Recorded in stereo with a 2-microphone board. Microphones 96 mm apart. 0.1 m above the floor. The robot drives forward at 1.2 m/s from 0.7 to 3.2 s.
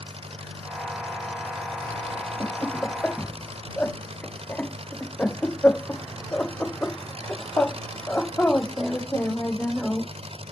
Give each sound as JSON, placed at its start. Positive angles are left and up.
{"t": 0.0, "sound": "an engine running", "side_deg": -75}
{"t": 2.4, "sound": "laughter", "side_deg": 15}